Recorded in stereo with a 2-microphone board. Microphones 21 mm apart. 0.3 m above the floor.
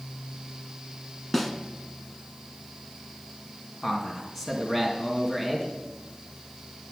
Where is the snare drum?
5° left (ahead or behind), 1.1 m.